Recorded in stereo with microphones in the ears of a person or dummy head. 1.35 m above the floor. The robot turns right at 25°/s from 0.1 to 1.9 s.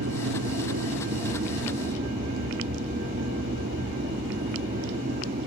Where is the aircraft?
90° right; by 5.5 s 45° right.